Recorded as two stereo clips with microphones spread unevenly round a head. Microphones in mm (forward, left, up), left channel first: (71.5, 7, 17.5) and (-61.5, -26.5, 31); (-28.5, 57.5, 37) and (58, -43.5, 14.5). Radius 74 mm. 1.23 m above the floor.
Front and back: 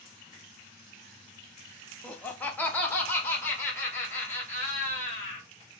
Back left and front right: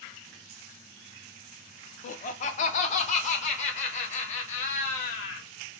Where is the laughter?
95° left, 0.7 m; by 5.5 s 90° left, 2.5 m.